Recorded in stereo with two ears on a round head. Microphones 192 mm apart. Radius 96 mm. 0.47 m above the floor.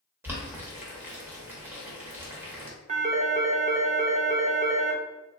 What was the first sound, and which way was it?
Boiling, 10° right (ahead or behind).